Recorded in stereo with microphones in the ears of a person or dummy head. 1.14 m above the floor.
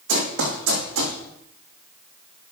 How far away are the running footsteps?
About 3.5 m.